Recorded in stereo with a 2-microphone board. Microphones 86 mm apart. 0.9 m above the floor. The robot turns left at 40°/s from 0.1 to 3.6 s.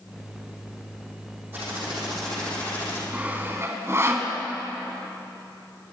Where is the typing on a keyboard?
160° right, 7 m; by 3.0 s 140° left, 7 m.